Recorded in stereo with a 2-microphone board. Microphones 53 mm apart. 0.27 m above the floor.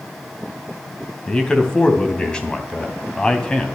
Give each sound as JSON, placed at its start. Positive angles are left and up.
{"t": 1.3, "sound": "a man speaking", "side_deg": 15, "distance_m": 2.5}